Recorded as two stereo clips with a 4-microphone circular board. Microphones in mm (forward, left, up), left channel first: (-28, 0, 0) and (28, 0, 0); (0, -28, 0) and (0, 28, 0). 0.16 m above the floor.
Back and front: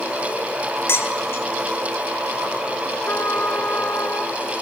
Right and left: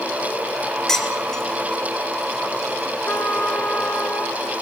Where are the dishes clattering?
170° right, 1.4 m.